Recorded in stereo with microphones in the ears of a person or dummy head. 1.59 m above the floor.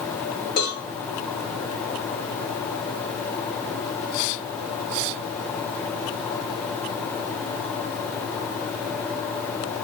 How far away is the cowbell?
About 2.5 m.